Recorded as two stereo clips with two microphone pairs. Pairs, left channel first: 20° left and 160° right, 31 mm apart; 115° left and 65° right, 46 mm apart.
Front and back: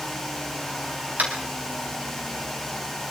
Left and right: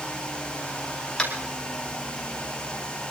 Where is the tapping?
175° right, 4.5 m.